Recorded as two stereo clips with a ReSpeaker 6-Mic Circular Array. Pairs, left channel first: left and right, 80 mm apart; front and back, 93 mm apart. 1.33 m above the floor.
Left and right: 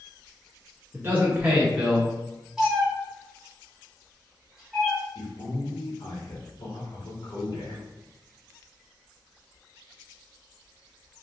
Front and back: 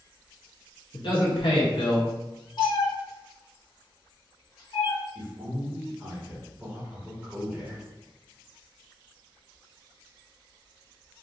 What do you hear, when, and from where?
0.9 s a man speaking: 30° right, 0.7 m; by 2.1 s 5° right, 1.1 m
2.6 s a cat meowing: 10° right, 1.4 m
5.2 s a man speaking: 110° left, 1.5 m